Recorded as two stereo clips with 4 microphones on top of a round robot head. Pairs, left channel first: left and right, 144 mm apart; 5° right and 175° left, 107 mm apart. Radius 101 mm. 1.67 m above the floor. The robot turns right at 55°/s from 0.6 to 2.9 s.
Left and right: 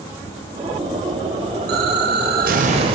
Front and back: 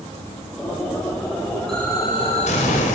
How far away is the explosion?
About 5.5 m.